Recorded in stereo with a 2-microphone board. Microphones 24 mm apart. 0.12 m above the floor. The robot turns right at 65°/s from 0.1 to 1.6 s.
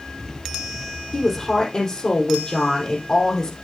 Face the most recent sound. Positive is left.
turn(degrees=45)